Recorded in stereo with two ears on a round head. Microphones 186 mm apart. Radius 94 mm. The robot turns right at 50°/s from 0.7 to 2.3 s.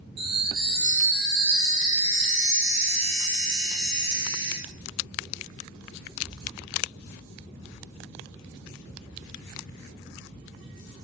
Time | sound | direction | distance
0.2 | a chime | 150° right | 3.5 m